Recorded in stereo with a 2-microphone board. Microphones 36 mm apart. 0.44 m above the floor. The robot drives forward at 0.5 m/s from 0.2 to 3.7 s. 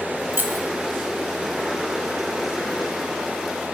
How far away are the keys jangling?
About 1.2 m.